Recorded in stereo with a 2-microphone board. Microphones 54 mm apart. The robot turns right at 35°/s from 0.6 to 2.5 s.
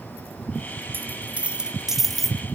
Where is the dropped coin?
40° right, 1.2 m; by 2.4 s 10° left, 1.2 m.